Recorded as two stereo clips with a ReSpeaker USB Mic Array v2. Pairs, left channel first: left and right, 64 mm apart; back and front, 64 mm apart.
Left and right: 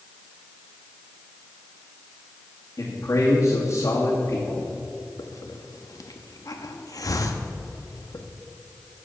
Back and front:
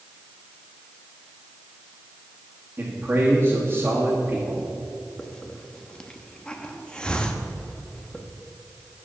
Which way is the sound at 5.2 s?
105° left.